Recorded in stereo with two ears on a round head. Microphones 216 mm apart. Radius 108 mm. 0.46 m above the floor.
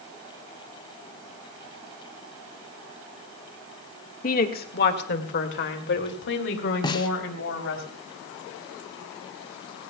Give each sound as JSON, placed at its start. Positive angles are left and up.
{"t": 4.2, "sound": "a woman speaking", "side_deg": 35, "distance_m": 1.6}
{"t": 6.8, "sound": "a snare drum", "side_deg": 20, "distance_m": 0.9}